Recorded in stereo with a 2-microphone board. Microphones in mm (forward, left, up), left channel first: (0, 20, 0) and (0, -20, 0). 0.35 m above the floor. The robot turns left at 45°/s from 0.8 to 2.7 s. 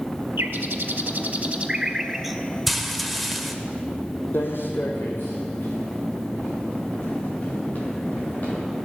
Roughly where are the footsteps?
Left.